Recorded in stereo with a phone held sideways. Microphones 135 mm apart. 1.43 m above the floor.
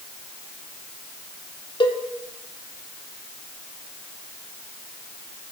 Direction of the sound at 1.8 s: 35° left (ahead or behind).